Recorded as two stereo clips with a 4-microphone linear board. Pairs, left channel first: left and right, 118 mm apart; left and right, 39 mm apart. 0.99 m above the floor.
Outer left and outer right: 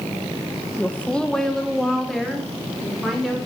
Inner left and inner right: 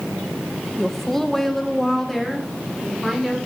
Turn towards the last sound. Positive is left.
turn(degrees=0)  # may be behind; listen again after turning